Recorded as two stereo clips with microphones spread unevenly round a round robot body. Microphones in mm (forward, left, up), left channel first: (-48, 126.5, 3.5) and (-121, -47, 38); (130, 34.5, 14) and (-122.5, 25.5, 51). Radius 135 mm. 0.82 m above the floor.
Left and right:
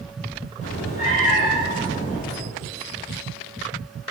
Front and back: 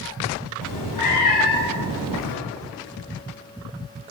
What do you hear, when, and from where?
0.6 s a cat meowing: straight ahead, 2.5 m